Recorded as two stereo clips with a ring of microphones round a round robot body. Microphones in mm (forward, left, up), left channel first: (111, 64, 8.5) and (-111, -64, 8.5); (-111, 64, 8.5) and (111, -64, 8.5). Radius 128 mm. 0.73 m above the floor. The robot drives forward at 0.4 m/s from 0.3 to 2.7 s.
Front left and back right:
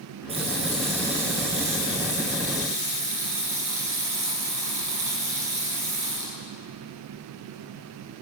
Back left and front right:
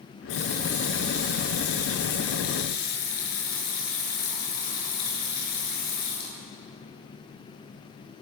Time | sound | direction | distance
0.3 | a running tap | 140° left | 7.5 m